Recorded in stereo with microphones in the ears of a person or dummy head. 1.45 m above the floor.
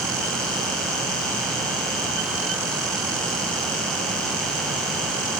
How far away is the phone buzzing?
No phone buzzing in this recording.